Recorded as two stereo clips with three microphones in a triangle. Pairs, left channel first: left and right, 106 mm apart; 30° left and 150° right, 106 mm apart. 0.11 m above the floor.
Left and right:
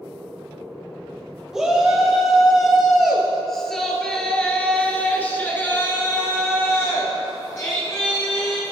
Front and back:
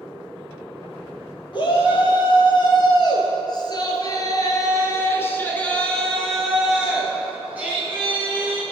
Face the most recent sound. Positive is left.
turn(degrees=155)